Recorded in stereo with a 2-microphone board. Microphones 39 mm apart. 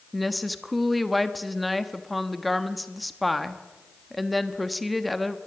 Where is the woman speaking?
Centre (ahead or behind), 1.2 m.